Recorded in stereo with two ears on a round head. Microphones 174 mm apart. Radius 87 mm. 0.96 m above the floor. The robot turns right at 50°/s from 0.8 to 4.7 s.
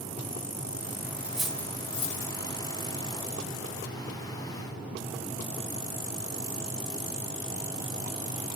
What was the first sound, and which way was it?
Cutlery clinking, 10° right (ahead or behind).